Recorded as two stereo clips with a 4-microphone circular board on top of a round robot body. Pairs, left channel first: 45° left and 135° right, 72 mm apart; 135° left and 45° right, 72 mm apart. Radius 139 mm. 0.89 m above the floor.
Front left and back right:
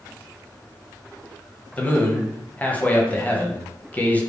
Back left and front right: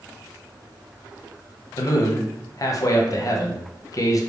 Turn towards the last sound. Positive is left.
turn(degrees=110)